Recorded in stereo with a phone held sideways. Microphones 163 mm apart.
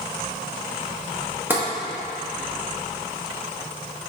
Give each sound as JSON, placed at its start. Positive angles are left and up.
{"t": 1.5, "sound": "tapping", "side_deg": -10, "distance_m": 1.2}